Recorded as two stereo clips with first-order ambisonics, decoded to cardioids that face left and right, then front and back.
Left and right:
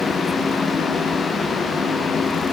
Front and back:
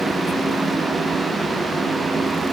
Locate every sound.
Only background noise.